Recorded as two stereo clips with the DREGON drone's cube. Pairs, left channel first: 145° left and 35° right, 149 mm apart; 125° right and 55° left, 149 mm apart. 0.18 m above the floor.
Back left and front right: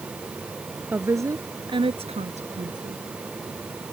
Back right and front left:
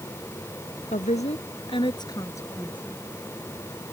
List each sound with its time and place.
0.9 s a woman speaking: 110° right; by 3.0 s 40° right